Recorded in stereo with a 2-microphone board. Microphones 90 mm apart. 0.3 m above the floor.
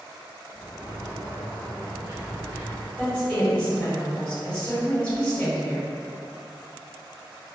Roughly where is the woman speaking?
Centre.